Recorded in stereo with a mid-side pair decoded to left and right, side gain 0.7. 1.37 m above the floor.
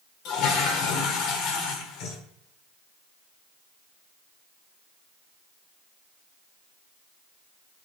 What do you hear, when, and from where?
0.2 s a toilet flushing: 60° left, 1.0 m